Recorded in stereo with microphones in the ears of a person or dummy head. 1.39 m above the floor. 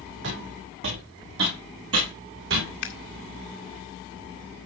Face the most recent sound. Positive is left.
turn(degrees=50)  # may be behind; listen again after turning